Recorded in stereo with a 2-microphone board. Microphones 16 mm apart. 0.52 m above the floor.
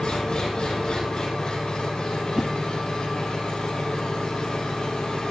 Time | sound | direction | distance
0.0 | an engine running | 55° left (ahead or behind) | 9 m
2.4 | a whoosh | 25° right (ahead or behind) | 1.2 m